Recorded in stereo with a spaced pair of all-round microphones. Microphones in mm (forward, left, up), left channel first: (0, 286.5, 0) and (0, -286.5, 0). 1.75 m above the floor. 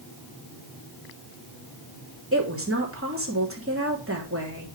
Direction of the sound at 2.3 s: 20° right (ahead or behind).